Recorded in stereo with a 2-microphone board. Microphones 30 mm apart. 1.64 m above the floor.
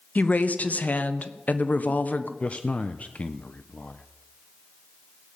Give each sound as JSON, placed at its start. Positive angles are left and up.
{"t": 0.1, "sound": "a woman speaking", "side_deg": 60, "distance_m": 1.1}
{"t": 2.4, "sound": "a man speaking", "side_deg": 45, "distance_m": 0.7}